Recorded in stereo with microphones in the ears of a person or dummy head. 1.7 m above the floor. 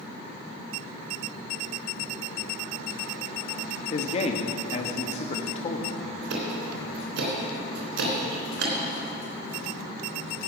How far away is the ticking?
About 3 m.